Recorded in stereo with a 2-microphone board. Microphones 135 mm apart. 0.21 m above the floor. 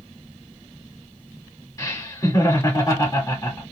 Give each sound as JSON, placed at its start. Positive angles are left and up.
{"t": 1.8, "sound": "laughter", "side_deg": 25, "distance_m": 1.6}